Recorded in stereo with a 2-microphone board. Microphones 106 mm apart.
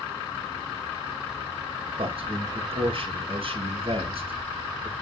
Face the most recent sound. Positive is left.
turn(degrees=-60)  # may be behind; listen again after turning